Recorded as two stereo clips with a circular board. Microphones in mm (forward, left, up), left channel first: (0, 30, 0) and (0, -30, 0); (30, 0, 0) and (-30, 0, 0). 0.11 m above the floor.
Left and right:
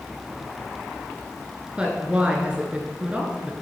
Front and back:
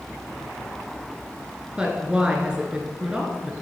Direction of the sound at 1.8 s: 130° right.